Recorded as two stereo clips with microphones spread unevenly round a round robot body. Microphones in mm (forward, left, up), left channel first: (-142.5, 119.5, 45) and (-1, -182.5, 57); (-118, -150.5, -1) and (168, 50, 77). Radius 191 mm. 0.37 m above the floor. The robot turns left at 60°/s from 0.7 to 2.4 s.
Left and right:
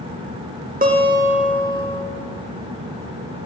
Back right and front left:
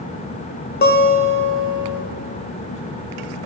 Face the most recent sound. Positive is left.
turn(degrees=145)